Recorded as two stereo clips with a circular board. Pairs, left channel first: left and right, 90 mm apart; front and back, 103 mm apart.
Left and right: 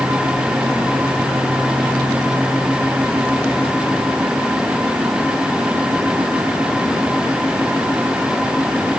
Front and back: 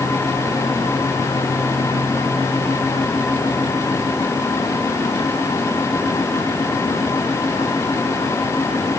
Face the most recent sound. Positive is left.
No sound to turn to.